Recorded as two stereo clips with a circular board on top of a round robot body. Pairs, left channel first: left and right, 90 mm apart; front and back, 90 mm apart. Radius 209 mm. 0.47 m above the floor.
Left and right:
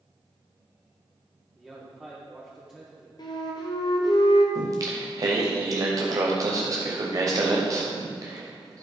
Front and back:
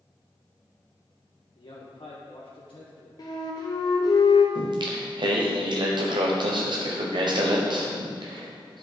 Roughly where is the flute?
Ahead left.